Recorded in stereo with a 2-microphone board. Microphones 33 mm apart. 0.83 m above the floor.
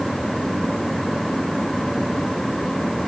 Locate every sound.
Only background noise.